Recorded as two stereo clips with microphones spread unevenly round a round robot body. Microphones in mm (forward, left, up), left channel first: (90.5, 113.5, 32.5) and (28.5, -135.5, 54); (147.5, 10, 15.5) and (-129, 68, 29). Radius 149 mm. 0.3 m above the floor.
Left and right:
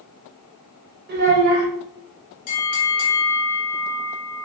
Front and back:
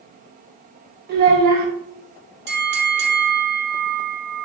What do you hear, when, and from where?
1.1 s a child speaking: 145° right, 1.3 m
2.5 s a bell: 120° left, 1.0 m